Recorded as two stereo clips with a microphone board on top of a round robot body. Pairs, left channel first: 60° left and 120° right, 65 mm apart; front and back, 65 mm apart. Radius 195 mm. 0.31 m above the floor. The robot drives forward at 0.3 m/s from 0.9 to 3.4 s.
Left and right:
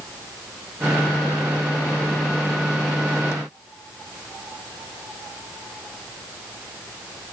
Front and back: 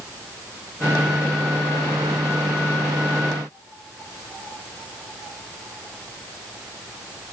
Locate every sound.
Only background noise.